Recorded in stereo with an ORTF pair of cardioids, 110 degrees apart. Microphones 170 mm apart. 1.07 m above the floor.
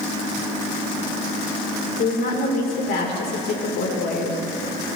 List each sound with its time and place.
2.0 s a woman speaking: 65° left, 3.5 m